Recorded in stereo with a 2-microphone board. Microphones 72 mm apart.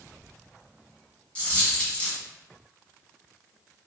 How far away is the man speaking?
No man speaking in this recording.